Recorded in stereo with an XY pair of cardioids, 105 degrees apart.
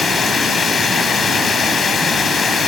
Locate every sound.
0.0 s running water: 40° left, 2.5 m